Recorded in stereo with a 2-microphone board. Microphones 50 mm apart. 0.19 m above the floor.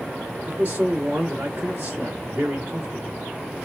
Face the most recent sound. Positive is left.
turn(degrees=-40)  # may be behind; listen again after turning